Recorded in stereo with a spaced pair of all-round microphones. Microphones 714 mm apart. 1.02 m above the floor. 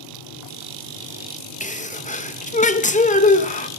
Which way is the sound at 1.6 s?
10° left (ahead or behind).